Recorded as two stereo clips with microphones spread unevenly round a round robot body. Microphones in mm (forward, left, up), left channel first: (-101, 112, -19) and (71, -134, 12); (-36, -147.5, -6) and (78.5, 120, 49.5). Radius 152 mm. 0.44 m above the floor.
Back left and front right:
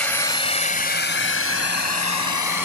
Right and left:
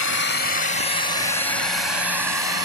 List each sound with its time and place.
0.0 s a drone: 150° right; by 2.6 s 150° left